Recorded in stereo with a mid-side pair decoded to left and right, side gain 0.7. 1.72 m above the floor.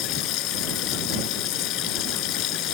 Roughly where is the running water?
Ahead left.